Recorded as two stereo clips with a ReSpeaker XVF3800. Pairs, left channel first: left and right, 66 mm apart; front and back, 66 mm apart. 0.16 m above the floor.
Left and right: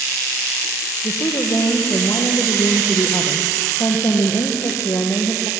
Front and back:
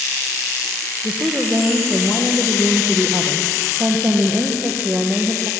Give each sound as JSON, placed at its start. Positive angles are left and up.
{"t": 1.0, "sound": "a woman speaking", "azimuth_deg": 120, "distance_m": 4.5}